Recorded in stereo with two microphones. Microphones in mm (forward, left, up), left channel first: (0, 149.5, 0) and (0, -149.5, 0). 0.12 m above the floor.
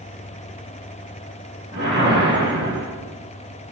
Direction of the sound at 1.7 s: 35° right (ahead or behind).